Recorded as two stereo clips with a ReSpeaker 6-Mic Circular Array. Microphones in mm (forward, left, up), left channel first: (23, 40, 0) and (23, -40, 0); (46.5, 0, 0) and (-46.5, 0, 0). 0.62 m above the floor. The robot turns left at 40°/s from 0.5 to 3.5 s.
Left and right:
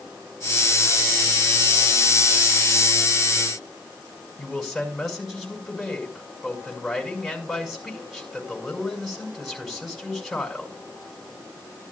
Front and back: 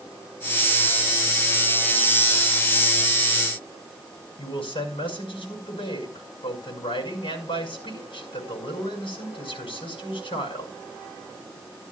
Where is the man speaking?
Straight ahead, 5.5 m.